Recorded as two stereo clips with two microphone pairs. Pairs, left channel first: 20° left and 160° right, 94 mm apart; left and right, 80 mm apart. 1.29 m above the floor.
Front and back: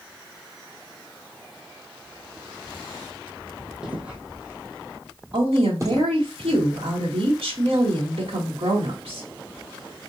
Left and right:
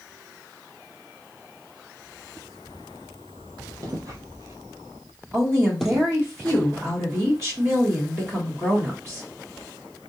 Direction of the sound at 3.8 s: 80° right.